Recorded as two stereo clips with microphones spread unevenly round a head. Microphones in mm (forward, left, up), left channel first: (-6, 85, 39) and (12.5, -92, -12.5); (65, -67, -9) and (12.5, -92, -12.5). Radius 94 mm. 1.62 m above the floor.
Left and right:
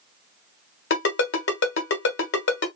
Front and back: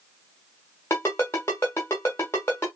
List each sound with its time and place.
0.9 s a ringtone: 90° left, 1.3 m